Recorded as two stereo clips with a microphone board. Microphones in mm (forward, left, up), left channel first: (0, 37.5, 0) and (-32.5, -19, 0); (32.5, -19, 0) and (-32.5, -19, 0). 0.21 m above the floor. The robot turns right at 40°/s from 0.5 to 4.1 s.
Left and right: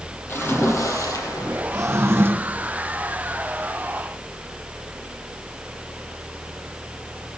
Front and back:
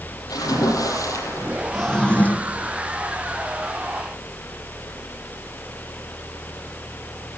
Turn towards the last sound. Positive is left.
turn(degrees=5)